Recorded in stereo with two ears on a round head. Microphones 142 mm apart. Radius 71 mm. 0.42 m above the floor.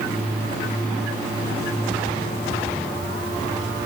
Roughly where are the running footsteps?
No running footsteps in this recording.